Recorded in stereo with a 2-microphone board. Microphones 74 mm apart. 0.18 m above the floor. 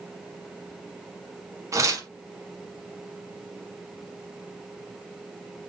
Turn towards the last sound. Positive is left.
turn(degrees=-45)  # may be behind; listen again after turning